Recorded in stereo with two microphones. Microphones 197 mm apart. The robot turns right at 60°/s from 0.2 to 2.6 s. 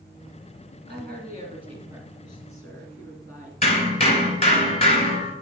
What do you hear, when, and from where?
0.9 s a woman speaking: 80° right, 2.5 m; by 3.5 s 25° left, 2.5 m
3.6 s hammering: 35° left (ahead or behind), 1.5 m